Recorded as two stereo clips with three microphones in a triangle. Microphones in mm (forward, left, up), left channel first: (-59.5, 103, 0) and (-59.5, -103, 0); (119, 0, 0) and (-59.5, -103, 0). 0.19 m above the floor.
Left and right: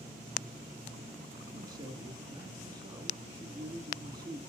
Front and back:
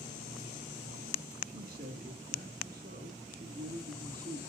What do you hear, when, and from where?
1.5 s a man speaking: 155° right, 1.8 m